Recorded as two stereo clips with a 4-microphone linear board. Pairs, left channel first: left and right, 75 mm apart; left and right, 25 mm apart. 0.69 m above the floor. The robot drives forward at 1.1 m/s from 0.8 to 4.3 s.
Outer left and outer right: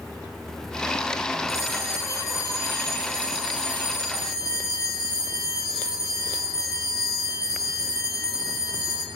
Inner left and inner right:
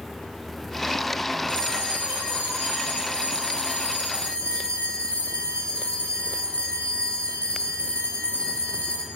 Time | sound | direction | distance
1.5 | a bell | 45° left (ahead or behind) | 8 m